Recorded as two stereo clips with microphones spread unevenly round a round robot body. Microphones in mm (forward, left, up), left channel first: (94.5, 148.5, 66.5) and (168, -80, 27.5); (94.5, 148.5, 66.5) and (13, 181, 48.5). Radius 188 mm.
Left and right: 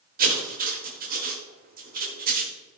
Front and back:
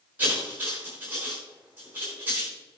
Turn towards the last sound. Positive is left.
turn(degrees=-130)